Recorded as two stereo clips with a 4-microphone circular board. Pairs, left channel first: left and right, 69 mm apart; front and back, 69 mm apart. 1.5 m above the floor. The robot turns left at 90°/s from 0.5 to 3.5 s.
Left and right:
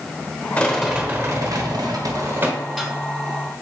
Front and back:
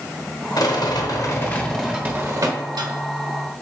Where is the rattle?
20° left, 1.0 m; by 2.9 s 165° left, 1.0 m.